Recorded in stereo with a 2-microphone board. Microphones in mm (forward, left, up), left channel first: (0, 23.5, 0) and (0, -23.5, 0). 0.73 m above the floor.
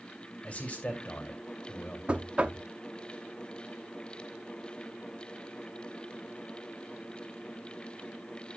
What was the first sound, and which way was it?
A man speaking, 30° left (ahead or behind).